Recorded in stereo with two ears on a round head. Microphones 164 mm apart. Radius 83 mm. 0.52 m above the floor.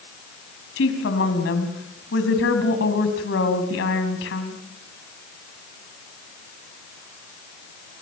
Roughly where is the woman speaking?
Left.